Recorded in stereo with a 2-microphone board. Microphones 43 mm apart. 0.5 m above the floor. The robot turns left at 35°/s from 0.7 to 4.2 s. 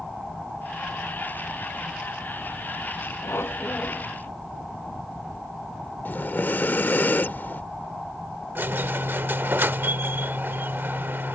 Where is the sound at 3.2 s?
70° left; by 4.1 s 40° left.